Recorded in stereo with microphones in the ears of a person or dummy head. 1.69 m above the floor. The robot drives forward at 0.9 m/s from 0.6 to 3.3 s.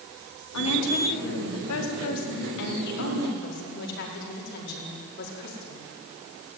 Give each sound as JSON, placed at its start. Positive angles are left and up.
{"t": 0.5, "sound": "a woman speaking", "side_deg": 85, "distance_m": 4.5}